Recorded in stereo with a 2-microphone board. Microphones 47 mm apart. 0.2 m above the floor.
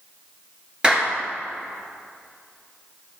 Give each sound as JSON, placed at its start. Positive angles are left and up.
{"t": 0.8, "sound": "a clap", "side_deg": -20, "distance_m": 2.5}